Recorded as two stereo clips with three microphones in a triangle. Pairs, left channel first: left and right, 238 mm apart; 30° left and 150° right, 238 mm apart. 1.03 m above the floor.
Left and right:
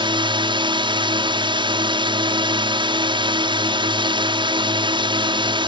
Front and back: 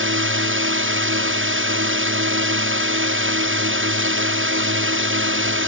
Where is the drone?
155° right.